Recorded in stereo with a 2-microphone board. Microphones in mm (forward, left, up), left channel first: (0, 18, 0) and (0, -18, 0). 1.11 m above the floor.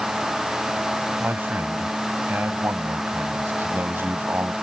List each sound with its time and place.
1.2 s a man speaking: 85° right